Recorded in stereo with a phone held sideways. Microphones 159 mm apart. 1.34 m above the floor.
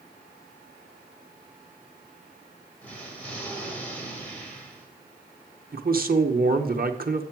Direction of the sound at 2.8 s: 10° left (ahead or behind).